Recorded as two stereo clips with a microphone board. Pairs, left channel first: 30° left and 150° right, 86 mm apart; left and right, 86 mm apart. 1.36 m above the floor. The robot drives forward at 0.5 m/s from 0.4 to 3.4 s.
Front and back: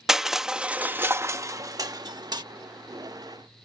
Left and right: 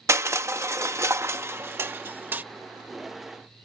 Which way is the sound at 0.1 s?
70° right.